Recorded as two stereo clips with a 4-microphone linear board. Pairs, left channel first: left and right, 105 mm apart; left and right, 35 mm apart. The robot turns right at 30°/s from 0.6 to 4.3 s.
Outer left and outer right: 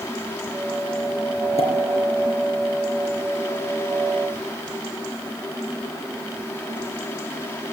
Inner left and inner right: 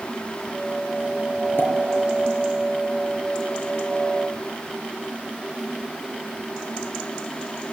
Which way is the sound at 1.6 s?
75° left (ahead or behind).